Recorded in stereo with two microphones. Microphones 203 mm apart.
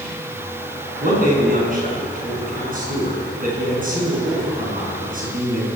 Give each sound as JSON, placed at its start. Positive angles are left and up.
{"t": 1.0, "sound": "a man speaking", "side_deg": -40, "distance_m": 8.0}